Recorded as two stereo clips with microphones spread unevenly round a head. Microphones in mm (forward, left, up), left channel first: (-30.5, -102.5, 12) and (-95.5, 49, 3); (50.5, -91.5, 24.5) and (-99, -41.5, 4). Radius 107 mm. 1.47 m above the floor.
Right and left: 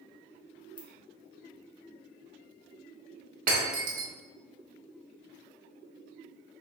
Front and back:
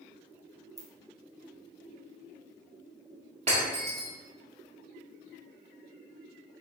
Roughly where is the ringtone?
Behind right.